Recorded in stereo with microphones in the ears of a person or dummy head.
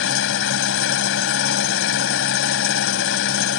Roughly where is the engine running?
Left.